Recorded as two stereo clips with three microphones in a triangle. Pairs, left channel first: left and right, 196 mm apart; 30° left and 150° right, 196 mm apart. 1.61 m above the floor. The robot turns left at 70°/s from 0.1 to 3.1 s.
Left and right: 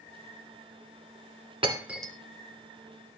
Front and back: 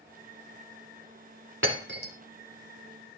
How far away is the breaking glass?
About 3 m.